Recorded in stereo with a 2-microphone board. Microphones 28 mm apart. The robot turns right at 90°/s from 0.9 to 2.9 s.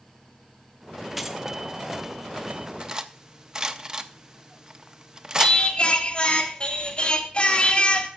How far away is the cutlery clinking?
About 0.6 m.